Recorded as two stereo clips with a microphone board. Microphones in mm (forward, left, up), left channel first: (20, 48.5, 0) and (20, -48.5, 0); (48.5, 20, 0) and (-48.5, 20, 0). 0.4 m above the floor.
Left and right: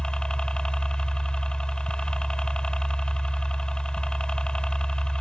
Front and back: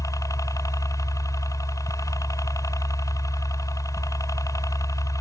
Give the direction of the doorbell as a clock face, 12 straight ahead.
No doorbell in this recording.